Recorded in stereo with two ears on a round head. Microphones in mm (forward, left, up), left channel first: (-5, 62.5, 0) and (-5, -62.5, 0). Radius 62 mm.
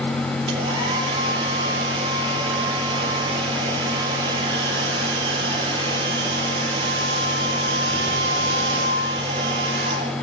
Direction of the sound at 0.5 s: 35° right (ahead or behind).